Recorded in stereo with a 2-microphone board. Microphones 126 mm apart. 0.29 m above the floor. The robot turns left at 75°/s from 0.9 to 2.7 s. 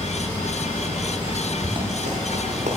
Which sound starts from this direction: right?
Running footsteps, at 1.6 s.